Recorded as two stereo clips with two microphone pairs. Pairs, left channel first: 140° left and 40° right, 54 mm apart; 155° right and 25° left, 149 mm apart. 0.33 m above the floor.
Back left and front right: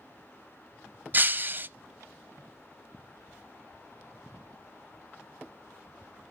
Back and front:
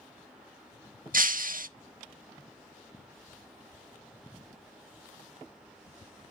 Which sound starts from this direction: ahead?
Breaking glass, at 1.1 s.